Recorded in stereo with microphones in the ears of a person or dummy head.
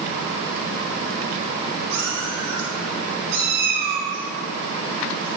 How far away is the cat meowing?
About 2 m.